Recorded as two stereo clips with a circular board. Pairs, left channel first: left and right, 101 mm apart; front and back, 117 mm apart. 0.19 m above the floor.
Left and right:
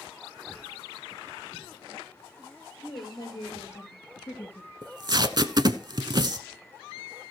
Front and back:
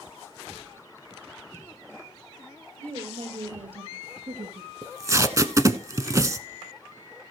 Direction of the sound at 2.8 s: 145° left.